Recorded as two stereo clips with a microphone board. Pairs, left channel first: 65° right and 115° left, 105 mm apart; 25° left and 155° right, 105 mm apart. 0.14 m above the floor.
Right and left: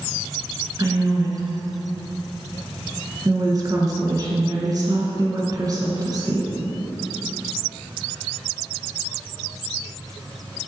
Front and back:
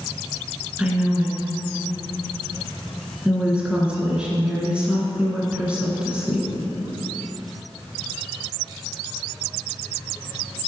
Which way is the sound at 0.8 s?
130° left.